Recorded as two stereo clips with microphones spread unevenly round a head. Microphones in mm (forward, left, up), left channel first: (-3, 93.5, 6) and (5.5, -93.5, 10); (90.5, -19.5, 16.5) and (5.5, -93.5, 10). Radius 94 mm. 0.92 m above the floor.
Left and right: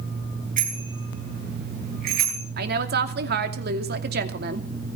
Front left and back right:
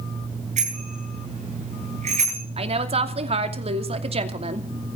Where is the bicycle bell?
135° right, 8.5 m; by 2.4 s 125° right, 11 m.